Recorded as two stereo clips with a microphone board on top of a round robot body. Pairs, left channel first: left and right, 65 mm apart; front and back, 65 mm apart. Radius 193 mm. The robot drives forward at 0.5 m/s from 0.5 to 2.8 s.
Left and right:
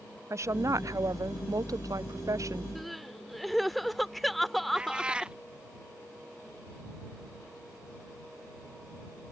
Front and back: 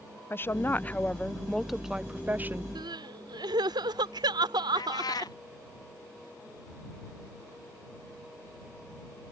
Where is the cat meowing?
15° right.